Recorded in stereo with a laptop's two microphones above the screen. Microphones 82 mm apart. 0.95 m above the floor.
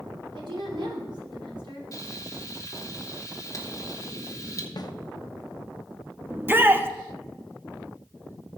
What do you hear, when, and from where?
0.3 s a woman speaking: 70° right (ahead or behind), 4 m
1.9 s frying: 45° left (ahead or behind), 0.9 m
4.8 s a snare drum: 50° left (ahead or behind), 0.5 m
6.3 s a shout: 25° right (ahead or behind), 1.2 m